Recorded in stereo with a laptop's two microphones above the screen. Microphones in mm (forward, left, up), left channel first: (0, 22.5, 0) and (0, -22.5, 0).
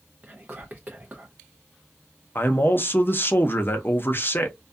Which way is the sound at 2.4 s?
45° left (ahead or behind).